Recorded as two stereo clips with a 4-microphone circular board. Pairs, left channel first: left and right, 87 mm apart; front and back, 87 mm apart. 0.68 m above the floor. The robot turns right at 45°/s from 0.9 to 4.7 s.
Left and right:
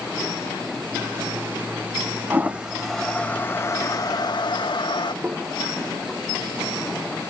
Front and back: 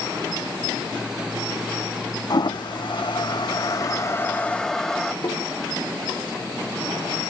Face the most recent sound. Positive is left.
turn(degrees=-20)